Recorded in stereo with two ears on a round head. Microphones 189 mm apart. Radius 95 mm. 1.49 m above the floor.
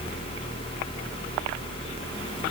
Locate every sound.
Only background noise.